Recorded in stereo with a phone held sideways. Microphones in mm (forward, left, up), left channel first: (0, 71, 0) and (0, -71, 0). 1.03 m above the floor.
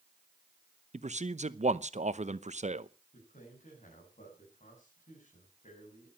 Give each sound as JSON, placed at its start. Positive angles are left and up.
{"t": 0.9, "sound": "a man speaking", "side_deg": -50, "distance_m": 0.8}
{"t": 3.1, "sound": "a man speaking", "side_deg": 55, "distance_m": 6.5}